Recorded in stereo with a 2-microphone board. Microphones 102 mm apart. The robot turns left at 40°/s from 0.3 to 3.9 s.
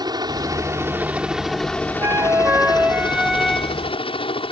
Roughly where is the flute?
Behind right.